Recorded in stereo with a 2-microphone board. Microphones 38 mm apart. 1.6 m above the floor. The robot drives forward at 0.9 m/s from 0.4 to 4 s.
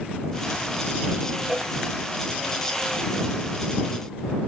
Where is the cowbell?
20° right (ahead or behind).